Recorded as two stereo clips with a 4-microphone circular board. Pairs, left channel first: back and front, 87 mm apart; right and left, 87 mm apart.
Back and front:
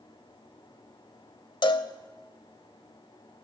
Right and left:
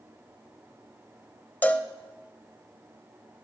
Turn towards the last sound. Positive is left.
turn(degrees=-155)